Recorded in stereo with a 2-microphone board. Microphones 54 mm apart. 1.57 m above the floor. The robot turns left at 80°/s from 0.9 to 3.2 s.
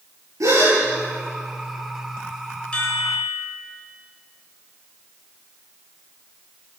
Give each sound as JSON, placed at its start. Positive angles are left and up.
{"t": 0.4, "sound": "a gasp", "side_deg": -70, "distance_m": 10.0}
{"t": 2.7, "sound": "a chime", "azimuth_deg": 160, "distance_m": 6.5}